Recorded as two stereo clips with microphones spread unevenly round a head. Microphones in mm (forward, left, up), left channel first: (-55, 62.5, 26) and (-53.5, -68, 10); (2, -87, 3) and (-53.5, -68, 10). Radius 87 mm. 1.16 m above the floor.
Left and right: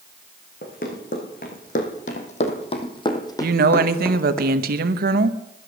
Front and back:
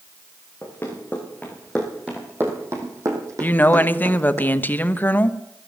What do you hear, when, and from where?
0.6 s running footsteps: 60° left, 4 m; by 4.4 s 170° left, 3 m
3.4 s a woman speaking: 80° right, 0.9 m